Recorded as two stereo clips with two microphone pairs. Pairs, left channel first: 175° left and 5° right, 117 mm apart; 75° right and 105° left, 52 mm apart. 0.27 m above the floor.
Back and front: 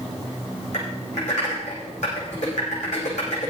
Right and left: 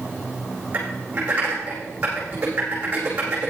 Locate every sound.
0.7 s typing on a keyboard: 165° left, 8.5 m